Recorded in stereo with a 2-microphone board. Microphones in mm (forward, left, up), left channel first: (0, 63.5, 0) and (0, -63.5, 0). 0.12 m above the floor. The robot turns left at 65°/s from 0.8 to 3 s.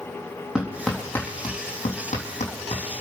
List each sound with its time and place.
0.6 s hammering: 5° right (ahead or behind), 3.5 m; by 2.8 s 50° left (ahead or behind), 3.5 m